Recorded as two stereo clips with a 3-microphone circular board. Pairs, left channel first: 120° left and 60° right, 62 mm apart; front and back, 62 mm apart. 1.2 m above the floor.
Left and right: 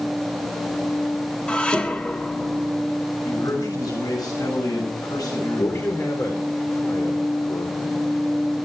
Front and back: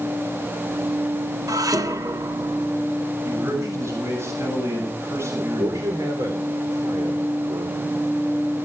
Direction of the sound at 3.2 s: 140° left.